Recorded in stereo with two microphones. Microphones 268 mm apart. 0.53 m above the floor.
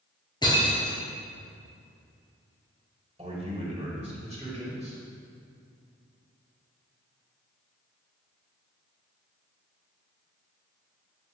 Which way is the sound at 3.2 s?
25° right (ahead or behind).